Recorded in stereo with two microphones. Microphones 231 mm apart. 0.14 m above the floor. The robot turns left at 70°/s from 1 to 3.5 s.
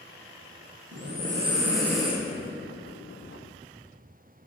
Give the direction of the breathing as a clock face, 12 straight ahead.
4 o'clock.